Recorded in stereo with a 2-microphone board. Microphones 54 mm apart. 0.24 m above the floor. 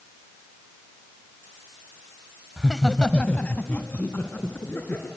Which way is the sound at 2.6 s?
5° right (ahead or behind).